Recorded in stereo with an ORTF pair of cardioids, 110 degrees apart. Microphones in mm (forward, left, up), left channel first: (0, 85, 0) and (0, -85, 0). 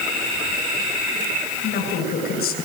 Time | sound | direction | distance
1.6 | a woman speaking | 65° left | 8 m